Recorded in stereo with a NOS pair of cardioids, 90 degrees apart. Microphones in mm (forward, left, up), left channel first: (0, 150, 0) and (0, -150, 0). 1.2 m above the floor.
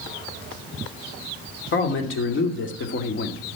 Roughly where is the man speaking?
Ahead left.